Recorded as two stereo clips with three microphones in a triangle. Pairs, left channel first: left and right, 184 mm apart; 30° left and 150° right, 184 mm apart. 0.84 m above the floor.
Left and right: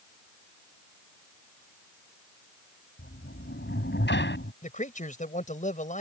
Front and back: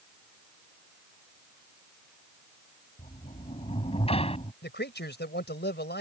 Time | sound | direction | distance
3.0 | a sliding door | 85° left | ?
4.6 | a man speaking | 45° left | ?